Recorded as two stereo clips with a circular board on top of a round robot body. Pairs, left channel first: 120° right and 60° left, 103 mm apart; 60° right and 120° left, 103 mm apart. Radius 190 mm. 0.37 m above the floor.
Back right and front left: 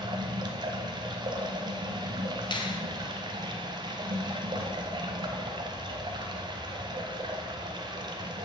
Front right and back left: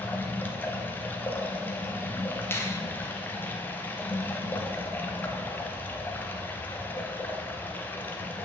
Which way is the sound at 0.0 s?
15° left.